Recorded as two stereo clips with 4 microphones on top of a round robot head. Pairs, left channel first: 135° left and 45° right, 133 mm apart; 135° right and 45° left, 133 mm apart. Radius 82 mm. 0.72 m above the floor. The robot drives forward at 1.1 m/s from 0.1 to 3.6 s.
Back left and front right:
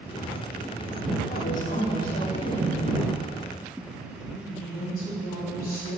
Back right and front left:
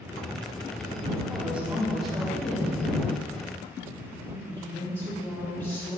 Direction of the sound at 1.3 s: 120° left.